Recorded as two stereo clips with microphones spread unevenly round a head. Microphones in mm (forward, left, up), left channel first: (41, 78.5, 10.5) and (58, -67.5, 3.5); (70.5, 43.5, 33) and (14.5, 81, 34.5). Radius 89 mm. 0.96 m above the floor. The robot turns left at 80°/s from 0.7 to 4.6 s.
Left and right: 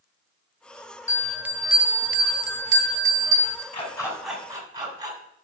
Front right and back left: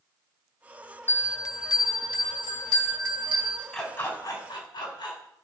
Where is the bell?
25° left, 0.8 m; by 3.6 s 175° right, 0.8 m.